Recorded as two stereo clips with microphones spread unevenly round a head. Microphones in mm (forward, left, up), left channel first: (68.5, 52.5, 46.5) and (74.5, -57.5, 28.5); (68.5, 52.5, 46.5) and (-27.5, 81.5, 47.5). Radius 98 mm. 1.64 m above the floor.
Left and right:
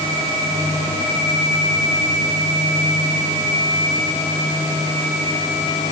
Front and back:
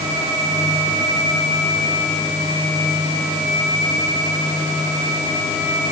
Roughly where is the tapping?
I don't hear tapping.